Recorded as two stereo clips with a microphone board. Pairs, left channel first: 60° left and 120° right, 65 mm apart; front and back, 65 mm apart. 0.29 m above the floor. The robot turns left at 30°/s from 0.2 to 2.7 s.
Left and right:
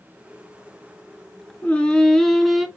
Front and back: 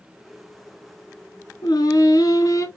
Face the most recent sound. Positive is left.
turn(degrees=-35)